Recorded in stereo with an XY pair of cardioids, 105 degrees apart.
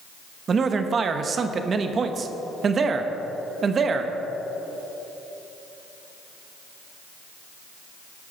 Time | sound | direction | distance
0.5 | a man speaking | 40° right | 1.1 m